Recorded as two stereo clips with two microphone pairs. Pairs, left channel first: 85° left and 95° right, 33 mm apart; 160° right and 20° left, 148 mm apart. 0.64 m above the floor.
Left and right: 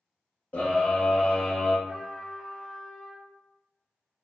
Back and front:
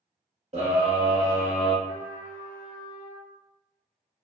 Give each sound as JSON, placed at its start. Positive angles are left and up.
{"t": 0.5, "sound": "a scream", "azimuth_deg": 55, "distance_m": 1.4}
{"t": 1.9, "sound": "a trumpet", "azimuth_deg": -15, "distance_m": 1.7}